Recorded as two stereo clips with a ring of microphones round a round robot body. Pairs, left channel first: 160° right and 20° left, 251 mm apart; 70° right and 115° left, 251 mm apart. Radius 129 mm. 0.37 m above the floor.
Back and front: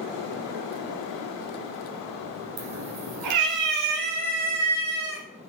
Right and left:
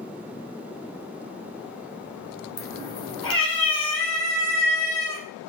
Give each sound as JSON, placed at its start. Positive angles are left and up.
{"t": 2.6, "sound": "a cat meowing", "azimuth_deg": 10, "distance_m": 2.0}